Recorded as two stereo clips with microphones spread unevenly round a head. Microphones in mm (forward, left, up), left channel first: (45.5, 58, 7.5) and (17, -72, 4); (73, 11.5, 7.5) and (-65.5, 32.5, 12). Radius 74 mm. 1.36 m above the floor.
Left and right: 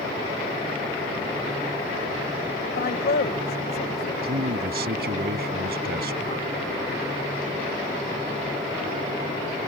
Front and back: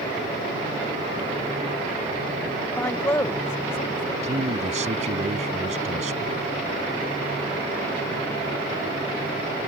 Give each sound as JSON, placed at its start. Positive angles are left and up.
{"t": 2.8, "sound": "a man speaking", "azimuth_deg": 65}
{"t": 4.2, "sound": "a man speaking", "azimuth_deg": -135}